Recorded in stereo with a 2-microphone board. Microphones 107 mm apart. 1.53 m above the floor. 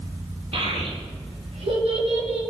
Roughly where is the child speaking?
Right.